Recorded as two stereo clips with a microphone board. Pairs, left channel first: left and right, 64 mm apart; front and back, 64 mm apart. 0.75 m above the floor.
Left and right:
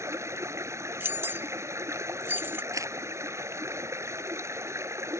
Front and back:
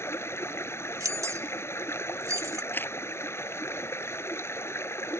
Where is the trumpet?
No trumpet in this recording.